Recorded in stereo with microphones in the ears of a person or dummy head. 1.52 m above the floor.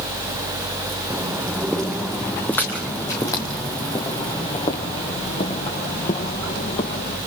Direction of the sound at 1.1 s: 5° right (ahead or behind).